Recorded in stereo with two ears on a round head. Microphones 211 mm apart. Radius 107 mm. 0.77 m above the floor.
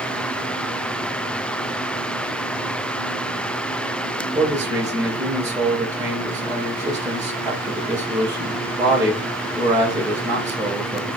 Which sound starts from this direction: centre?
A man speaking, at 4.3 s.